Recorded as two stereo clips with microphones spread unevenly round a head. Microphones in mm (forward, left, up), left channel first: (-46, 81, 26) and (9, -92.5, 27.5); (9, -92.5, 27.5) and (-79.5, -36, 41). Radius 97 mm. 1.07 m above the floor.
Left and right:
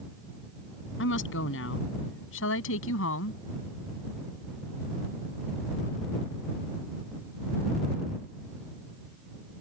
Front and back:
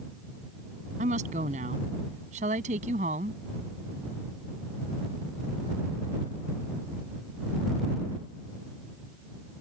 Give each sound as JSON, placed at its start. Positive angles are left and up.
{"t": 1.0, "sound": "a woman speaking", "azimuth_deg": 120}